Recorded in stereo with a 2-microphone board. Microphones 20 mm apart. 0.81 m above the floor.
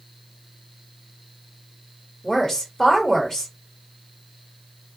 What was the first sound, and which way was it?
A woman speaking, 25° left (ahead or behind).